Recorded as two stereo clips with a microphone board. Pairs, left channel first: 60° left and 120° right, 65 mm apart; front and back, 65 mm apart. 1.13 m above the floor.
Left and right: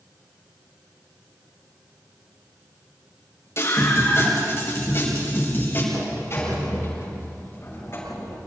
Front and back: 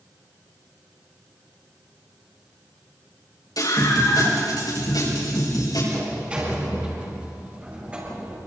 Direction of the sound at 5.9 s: 110° left.